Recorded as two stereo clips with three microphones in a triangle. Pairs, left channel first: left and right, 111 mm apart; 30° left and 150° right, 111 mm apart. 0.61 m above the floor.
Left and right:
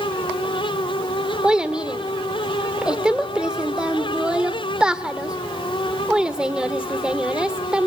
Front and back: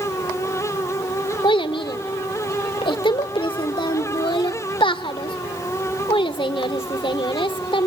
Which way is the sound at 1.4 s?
10° right.